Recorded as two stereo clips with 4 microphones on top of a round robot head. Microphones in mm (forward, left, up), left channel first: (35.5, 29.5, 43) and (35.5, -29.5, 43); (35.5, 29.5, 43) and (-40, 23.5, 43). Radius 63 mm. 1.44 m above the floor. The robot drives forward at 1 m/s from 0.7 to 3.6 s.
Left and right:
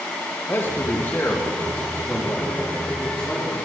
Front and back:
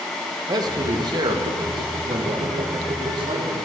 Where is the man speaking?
150° left, 2 m; by 3.5 s 170° left, 5 m.